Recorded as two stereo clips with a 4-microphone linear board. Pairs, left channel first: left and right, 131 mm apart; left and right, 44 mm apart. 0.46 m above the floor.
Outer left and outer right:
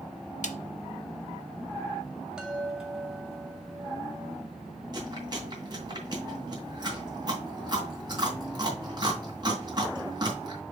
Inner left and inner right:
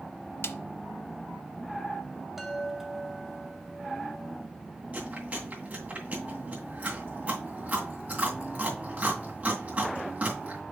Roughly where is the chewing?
Right.